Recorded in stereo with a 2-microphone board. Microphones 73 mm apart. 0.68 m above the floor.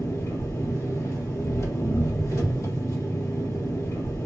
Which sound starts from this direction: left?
An engine running, at 0.0 s.